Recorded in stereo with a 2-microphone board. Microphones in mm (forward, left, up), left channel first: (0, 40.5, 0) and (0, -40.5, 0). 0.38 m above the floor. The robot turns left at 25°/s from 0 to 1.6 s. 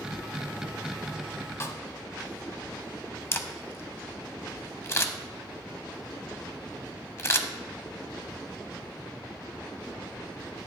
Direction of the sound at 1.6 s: 35° left (ahead or behind).